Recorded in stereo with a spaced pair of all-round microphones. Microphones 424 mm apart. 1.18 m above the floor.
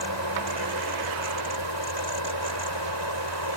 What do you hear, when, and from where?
0.0 s a fan: 80° left